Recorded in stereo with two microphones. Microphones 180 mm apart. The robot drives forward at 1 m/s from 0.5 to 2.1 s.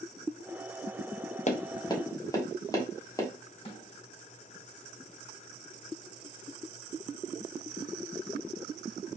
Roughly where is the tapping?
Left.